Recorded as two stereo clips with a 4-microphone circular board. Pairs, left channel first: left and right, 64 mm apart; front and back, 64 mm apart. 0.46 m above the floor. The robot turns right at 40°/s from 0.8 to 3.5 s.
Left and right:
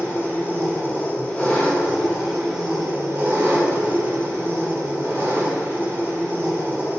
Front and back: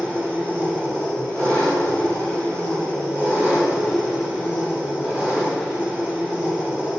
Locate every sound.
0.0 s an engine running: 125° left, 1.0 m; by 7.0 s 125° right, 1.0 m